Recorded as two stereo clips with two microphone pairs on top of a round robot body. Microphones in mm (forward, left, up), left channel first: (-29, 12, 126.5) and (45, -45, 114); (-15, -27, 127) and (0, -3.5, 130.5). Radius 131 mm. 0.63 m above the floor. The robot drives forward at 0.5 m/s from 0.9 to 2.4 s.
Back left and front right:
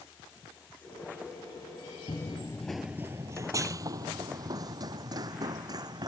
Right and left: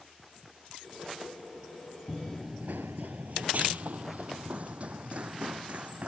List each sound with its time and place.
2.1 s running footsteps: 140° left; by 6.1 s 15° left